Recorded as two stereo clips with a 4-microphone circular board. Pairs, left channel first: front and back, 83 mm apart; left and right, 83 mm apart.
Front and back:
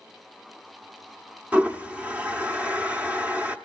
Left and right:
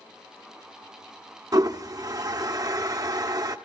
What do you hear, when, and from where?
1.5 s a toilet flushing: 110° right, 0.9 m